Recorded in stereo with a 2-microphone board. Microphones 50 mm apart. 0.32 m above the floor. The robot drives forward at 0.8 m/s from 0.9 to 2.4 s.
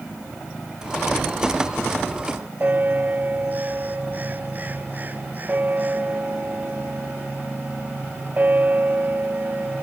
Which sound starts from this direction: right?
A bell, at 2.6 s.